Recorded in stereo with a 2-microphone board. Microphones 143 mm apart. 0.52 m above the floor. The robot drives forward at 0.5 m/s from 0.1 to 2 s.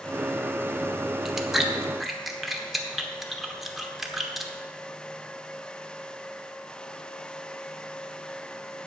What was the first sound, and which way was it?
Chewing, 5° right (ahead or behind).